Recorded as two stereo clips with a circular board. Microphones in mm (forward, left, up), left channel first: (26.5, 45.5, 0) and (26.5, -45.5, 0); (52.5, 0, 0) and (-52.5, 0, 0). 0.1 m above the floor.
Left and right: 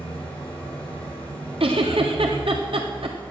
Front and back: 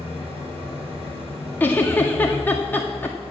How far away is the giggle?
About 1.5 m.